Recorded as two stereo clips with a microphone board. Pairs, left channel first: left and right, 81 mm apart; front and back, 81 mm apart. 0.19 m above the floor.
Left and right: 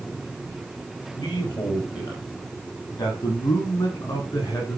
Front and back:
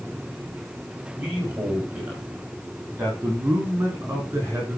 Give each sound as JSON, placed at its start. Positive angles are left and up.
{"t": 1.2, "sound": "a man speaking", "azimuth_deg": 105, "distance_m": 6.0}